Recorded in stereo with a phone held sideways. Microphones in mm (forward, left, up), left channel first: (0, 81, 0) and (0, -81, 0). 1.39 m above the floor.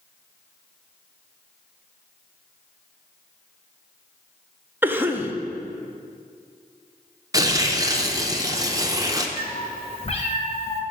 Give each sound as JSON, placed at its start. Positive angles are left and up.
{"t": 4.8, "sound": "a cough", "side_deg": -10, "distance_m": 0.6}
{"t": 7.3, "sound": "tearing paper", "side_deg": -20, "distance_m": 0.6}
{"t": 9.4, "sound": "a cat meowing", "side_deg": 40, "distance_m": 0.9}